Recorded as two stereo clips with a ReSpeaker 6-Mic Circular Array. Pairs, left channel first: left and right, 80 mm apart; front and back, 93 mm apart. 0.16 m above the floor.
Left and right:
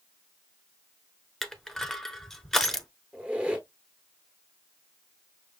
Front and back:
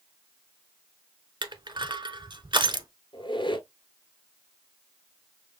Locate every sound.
1.4 s crushing: 175° left, 0.7 m
3.1 s a squeak: 20° right, 1.2 m